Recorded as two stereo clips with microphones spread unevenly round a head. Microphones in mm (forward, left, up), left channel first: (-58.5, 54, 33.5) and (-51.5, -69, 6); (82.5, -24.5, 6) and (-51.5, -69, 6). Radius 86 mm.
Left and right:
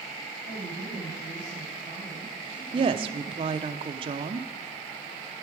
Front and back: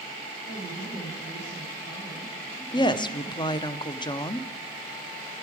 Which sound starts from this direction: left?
A woman speaking, at 0.5 s.